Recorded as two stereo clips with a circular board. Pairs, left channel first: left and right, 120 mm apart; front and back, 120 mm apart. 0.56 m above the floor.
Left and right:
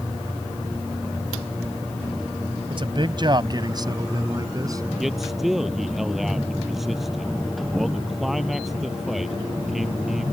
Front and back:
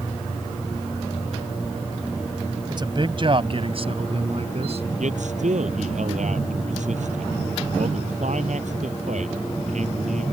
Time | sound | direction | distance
2.7 | a man speaking | 130° right | ?
5.0 | a man speaking | straight behind | ?